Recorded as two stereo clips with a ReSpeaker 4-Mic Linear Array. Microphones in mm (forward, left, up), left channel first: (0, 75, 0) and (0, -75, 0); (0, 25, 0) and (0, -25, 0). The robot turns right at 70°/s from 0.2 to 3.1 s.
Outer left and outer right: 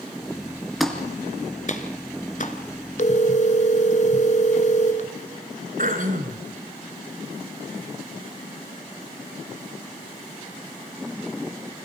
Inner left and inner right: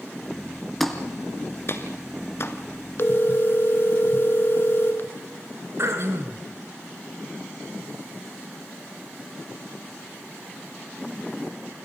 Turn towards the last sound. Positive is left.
turn(degrees=-65)  # may be behind; listen again after turning